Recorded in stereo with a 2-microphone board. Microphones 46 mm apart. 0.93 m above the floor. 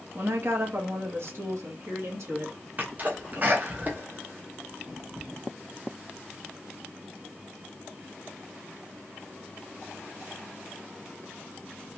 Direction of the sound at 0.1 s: 50° right (ahead or behind).